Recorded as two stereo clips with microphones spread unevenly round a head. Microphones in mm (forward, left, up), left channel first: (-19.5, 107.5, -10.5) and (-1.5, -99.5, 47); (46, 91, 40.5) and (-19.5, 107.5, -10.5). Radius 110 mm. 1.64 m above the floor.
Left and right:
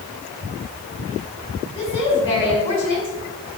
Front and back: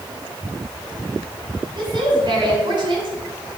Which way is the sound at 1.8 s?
165° left.